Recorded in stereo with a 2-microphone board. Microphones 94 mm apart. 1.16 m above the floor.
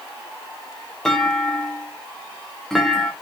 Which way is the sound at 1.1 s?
5° left (ahead or behind).